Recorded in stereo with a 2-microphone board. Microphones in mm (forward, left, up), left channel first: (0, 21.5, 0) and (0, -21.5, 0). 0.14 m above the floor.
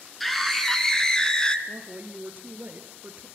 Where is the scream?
5° left (ahead or behind), 1.9 m; by 1.6 s 20° left (ahead or behind), 1.4 m.